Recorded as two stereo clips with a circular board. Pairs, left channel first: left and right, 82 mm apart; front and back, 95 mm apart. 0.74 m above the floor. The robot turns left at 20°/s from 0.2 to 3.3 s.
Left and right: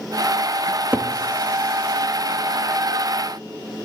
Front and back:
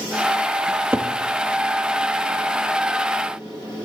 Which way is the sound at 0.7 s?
130° right.